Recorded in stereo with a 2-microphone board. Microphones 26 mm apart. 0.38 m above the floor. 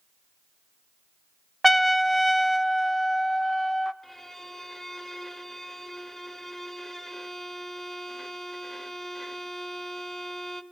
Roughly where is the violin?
Centre.